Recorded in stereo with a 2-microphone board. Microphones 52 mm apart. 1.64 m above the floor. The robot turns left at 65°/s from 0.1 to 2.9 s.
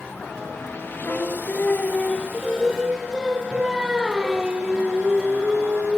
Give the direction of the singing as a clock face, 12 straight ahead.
9 o'clock.